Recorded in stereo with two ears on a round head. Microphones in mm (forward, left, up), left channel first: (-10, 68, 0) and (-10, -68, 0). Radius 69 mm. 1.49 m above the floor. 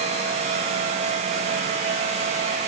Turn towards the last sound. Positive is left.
No sound to turn to.